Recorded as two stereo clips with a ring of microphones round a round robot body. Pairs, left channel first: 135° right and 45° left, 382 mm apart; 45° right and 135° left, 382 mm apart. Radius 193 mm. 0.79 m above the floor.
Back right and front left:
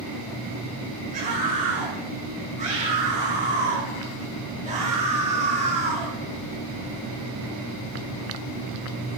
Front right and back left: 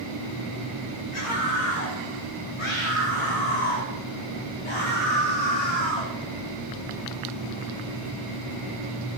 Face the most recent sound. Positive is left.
turn(degrees=-30)